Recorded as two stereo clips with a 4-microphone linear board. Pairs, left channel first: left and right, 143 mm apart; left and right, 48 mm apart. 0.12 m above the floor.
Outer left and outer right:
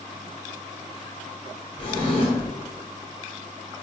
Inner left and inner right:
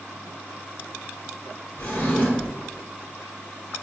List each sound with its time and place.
1.8 s a drawer: 40° left (ahead or behind), 1.1 m